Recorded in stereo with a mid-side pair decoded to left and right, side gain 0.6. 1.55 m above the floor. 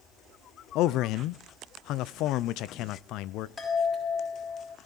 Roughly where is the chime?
Ahead left.